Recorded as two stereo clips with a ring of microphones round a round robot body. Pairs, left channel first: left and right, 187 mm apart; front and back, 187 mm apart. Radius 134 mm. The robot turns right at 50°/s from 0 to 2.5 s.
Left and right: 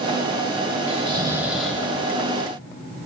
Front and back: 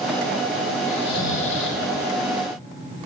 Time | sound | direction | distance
0.9 | snoring | 40° right | 1.9 m